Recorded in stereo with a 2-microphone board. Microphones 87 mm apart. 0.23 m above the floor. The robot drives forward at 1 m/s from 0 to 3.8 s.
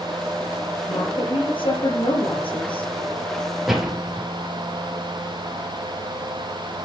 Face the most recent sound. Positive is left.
turn(degrees=-5)  # may be behind; listen again after turning